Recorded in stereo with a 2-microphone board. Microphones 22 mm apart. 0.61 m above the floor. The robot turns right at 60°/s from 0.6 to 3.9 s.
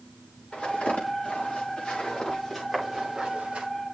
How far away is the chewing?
I don't hear chewing.